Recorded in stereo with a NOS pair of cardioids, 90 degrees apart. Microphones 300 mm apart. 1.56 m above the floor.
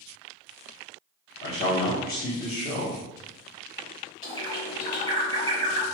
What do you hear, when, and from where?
1.4 s a man speaking: 40° left, 1.3 m
4.2 s a bird: 15° left, 1.4 m